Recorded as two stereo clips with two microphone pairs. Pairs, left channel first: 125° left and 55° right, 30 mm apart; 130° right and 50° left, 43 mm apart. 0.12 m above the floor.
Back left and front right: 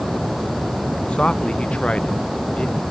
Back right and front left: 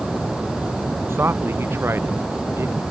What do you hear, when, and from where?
1.1 s a man speaking: 75° left